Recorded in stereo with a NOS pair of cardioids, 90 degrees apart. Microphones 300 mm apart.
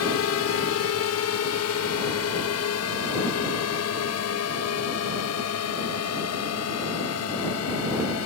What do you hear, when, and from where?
0.0 s a drone: 60° left